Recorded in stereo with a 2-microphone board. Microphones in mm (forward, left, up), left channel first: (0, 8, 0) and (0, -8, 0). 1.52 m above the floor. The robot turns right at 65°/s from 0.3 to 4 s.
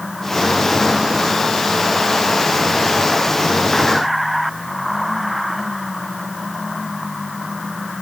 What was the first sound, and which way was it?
Only background noise.